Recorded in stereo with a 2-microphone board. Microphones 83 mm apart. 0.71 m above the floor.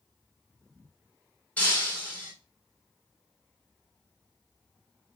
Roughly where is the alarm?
No alarm in this recording.